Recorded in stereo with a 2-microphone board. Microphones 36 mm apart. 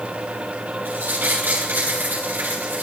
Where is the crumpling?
75° right (ahead or behind), 6 m.